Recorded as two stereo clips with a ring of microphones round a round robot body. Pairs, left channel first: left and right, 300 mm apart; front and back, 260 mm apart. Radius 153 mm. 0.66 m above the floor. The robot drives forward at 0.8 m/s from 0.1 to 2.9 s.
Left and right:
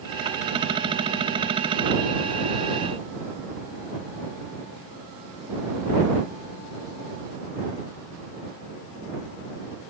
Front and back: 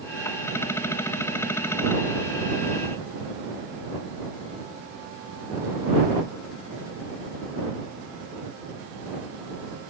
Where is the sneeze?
No sneeze in this recording.